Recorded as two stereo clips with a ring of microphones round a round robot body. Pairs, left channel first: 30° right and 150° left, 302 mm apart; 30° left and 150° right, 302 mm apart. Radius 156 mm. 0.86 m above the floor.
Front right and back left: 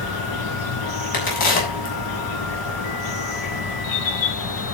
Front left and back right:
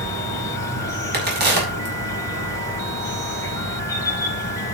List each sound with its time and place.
0.0 s an insect: 50° right, 4 m
1.1 s a crack: 90° right, 7 m